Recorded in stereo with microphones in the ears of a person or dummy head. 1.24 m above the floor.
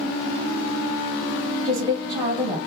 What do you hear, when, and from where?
1.6 s a woman speaking: 25° right (ahead or behind), 0.9 m